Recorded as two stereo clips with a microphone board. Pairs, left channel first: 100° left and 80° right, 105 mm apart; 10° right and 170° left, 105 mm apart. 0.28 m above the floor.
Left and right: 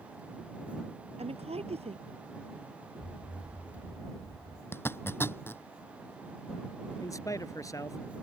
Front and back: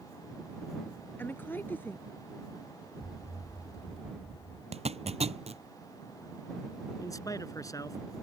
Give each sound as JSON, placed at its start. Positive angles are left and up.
{"t": 1.2, "sound": "a woman speaking", "azimuth_deg": -80}
{"t": 3.0, "sound": "an explosion", "azimuth_deg": 100}
{"t": 4.7, "sound": "a zipper", "azimuth_deg": 170}
{"t": 7.0, "sound": "a man speaking", "azimuth_deg": 45}